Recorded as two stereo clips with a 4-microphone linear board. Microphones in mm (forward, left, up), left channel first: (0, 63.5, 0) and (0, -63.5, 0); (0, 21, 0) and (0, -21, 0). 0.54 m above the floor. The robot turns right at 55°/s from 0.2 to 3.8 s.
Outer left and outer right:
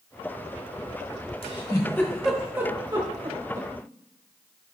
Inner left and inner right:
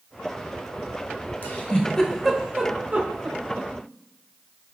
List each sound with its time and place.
1.4 s a giggle: 45° left (ahead or behind), 0.8 m; by 3.7 s 75° right (ahead or behind), 0.8 m